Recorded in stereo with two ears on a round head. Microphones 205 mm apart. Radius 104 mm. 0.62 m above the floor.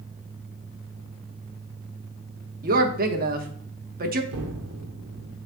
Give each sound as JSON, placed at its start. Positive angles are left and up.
{"t": 2.6, "sound": "a woman speaking", "side_deg": -40, "distance_m": 1.1}
{"t": 4.3, "sound": "an explosion", "side_deg": -75, "distance_m": 1.3}